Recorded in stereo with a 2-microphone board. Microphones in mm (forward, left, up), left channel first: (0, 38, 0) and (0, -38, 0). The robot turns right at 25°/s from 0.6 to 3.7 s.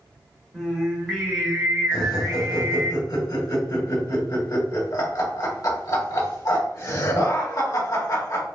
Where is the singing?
175° right, 1.7 m; by 2.9 s 120° right, 1.7 m.